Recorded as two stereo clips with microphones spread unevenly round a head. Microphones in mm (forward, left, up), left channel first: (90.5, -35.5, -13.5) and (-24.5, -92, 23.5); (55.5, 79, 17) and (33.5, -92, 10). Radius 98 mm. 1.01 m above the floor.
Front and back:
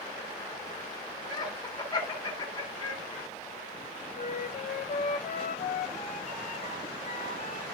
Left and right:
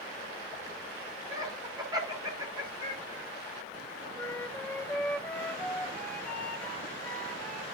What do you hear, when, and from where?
1.3 s laughter: 30° right, 3 m
4.2 s a flute: straight ahead, 2.5 m